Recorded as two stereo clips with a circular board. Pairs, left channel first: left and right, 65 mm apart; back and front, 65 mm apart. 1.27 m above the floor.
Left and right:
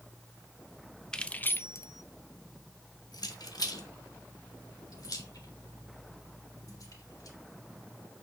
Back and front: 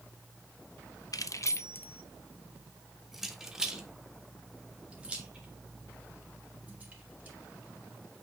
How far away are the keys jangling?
About 0.5 m.